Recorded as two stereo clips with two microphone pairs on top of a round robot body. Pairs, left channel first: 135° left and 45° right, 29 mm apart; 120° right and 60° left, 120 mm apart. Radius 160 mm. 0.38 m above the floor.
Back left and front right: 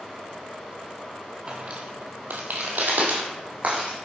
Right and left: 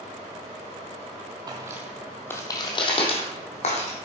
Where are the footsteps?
Straight ahead, 1.0 m; by 4.0 s 90° right, 2.0 m.